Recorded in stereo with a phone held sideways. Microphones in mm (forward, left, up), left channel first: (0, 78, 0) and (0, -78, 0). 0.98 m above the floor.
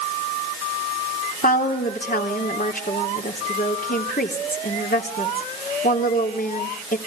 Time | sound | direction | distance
1.4 | a woman speaking | 65° left (ahead or behind) | 3 m